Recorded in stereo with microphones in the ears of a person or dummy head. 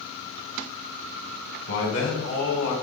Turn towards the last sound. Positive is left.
turn(degrees=75)  # may be behind; listen again after turning